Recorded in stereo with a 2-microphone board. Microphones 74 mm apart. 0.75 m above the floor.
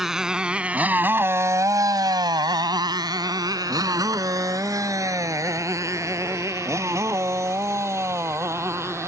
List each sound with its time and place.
0.0 s a motorcycle: 5° right (ahead or behind); by 9.1 s 40° right (ahead or behind)